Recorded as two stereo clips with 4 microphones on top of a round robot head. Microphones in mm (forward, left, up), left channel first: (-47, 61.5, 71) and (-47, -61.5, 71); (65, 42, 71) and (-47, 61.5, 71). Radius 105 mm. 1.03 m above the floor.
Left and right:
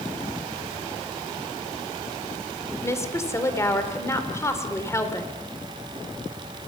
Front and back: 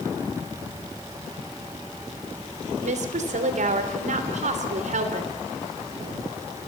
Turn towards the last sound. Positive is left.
turn(degrees=155)